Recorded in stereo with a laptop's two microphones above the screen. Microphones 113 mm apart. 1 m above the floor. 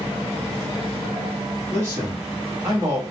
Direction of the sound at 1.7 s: 20° right (ahead or behind).